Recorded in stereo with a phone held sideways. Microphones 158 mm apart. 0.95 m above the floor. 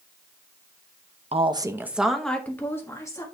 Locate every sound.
1.3 s a woman speaking: 40° right (ahead or behind), 0.6 m; by 3.2 s 20° left (ahead or behind), 1.6 m